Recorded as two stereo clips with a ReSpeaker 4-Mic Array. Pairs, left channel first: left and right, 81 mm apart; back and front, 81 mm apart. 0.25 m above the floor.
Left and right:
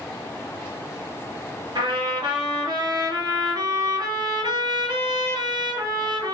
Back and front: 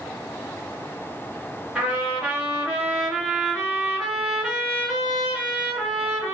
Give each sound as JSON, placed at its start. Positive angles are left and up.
{"t": 1.8, "sound": "a trumpet", "azimuth_deg": -80, "distance_m": 2.0}